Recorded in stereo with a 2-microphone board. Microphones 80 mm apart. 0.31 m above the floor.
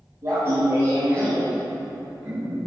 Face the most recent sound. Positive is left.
turn(degrees=-15)  # may be behind; listen again after turning